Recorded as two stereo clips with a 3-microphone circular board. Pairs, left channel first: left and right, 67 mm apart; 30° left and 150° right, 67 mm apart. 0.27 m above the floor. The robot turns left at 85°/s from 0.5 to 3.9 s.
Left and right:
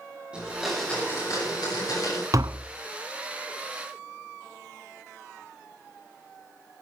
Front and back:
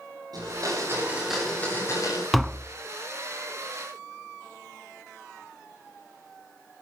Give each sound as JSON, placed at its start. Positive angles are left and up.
{"t": 0.3, "sound": "a blender", "azimuth_deg": -165, "distance_m": 8.0}
{"t": 2.3, "sound": "tapping", "azimuth_deg": -55, "distance_m": 0.7}